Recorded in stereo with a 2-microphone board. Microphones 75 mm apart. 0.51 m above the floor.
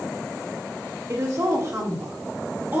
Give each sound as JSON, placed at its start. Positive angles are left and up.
{"t": 1.1, "sound": "a woman speaking", "side_deg": -45, "distance_m": 1.5}